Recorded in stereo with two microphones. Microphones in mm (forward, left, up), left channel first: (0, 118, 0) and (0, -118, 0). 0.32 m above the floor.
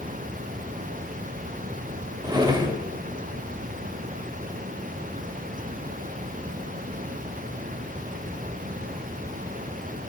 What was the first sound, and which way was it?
A drawer, 15° right (ahead or behind).